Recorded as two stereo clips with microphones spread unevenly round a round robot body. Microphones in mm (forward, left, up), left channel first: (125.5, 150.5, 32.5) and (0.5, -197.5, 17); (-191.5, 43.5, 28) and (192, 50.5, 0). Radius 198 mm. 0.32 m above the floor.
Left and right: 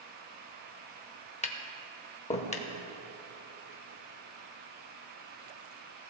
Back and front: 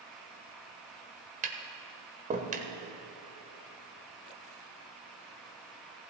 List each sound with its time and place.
1.4 s tapping: 20° left, 1.2 m